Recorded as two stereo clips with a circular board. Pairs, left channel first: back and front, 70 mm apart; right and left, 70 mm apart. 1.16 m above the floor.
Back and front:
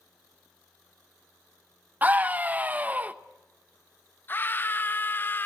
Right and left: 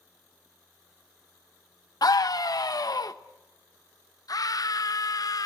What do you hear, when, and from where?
2.0 s a scream: 65° right, 0.9 m
4.3 s a scream: 120° right, 0.6 m